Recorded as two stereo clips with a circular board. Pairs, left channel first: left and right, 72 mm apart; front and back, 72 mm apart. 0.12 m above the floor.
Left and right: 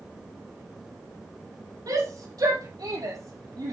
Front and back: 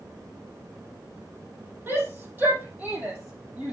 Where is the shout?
120° right, 5.5 m; by 3.7 s 105° right, 5 m.